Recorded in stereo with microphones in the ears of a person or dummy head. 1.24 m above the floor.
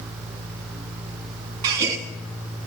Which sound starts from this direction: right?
A gasp, at 1.6 s.